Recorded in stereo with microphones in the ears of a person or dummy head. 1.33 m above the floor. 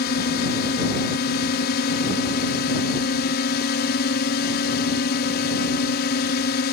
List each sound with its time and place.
0.0 s a drone: 55° left (ahead or behind)